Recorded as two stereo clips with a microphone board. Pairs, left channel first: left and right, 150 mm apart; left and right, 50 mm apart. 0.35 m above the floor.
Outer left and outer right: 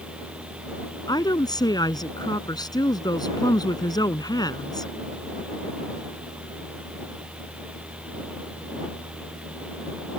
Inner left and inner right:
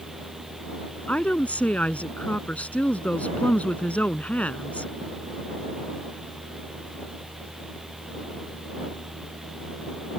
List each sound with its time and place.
1.1 s a woman speaking: 25° left (ahead or behind)